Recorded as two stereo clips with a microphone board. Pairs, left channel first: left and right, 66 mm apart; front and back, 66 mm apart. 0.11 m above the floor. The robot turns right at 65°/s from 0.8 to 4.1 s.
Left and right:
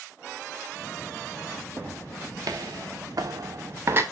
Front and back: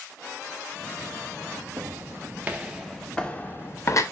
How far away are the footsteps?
About 3 m.